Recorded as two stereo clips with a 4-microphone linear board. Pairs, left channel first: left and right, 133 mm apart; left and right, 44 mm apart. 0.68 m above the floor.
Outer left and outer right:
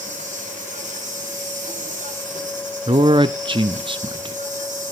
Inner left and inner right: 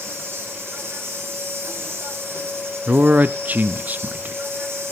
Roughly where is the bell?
No bell in this recording.